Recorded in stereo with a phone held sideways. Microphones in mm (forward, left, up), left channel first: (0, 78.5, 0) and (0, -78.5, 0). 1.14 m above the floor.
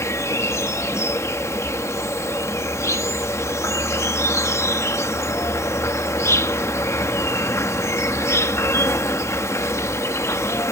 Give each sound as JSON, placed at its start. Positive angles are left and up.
{"t": 0.0, "sound": "an insect", "side_deg": 15}